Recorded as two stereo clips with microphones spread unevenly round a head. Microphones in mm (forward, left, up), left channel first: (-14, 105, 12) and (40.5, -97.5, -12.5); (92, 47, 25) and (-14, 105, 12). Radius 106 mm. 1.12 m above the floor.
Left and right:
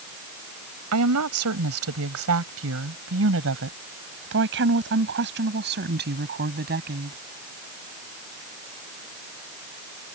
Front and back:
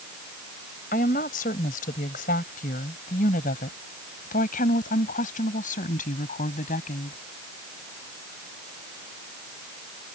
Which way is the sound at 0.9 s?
65° right.